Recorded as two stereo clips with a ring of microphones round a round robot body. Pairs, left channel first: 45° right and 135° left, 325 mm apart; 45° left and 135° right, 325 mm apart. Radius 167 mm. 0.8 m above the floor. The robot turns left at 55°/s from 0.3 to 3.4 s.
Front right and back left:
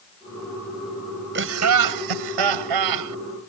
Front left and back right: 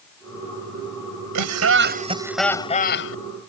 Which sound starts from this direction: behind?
Laughter, at 1.4 s.